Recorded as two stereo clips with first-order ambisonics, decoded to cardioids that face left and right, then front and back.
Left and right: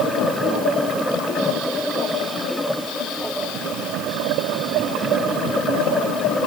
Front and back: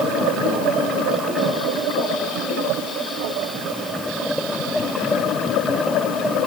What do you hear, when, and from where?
Only background noise.